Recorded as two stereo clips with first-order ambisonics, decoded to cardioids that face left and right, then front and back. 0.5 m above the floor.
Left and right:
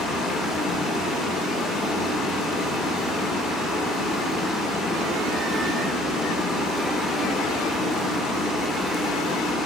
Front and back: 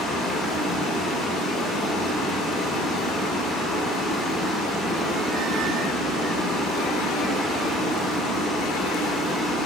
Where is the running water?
50° left, 1.4 m.